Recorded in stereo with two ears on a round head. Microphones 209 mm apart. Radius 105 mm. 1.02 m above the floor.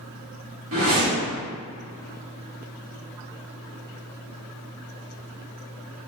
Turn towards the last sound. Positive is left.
turn(degrees=-60)  # may be behind; listen again after turning